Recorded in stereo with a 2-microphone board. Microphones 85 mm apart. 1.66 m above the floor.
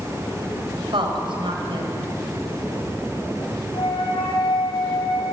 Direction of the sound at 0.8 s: 80° right.